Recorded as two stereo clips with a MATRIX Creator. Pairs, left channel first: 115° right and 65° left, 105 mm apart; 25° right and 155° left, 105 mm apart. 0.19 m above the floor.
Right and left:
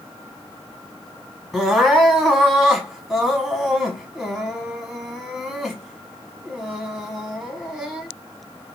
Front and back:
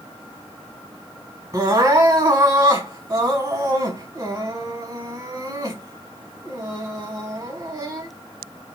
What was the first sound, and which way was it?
Crying, 155° left.